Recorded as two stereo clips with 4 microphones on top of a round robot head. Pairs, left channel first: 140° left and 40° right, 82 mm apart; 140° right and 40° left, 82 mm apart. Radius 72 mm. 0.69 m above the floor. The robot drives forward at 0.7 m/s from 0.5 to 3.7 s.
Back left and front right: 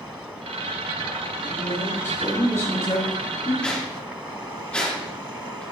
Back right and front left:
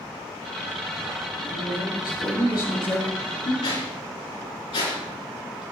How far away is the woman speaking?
About 5 m.